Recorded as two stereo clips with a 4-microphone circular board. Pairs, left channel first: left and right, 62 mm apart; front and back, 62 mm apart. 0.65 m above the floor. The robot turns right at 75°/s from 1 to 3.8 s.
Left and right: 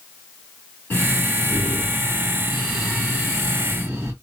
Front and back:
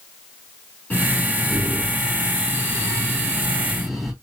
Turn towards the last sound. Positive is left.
turn(degrees=-90)